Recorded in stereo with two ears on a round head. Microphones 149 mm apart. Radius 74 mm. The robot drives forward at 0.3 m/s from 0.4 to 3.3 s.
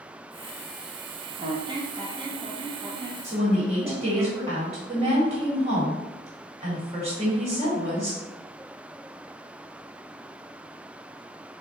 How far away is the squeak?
About 0.6 m.